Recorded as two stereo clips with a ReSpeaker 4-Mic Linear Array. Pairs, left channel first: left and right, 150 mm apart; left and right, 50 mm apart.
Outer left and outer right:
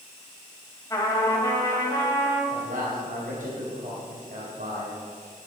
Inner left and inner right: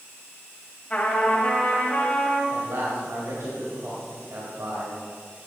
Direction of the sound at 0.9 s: 25° left (ahead or behind).